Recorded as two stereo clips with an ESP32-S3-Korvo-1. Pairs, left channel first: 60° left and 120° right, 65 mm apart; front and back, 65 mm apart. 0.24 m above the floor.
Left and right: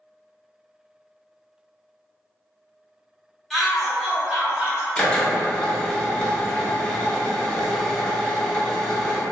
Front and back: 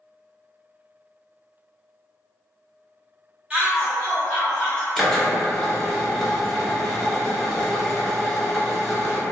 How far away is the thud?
I don't hear a thud.